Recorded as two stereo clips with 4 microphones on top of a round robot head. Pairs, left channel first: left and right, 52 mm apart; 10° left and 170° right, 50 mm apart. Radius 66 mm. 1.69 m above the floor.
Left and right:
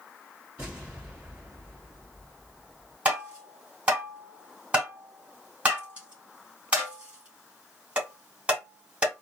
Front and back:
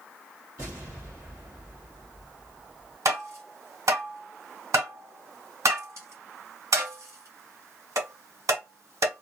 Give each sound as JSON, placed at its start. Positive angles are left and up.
{"t": 0.6, "sound": "an explosion", "azimuth_deg": -145, "distance_m": 2.0}
{"t": 3.0, "sound": "tapping", "azimuth_deg": -155, "distance_m": 2.5}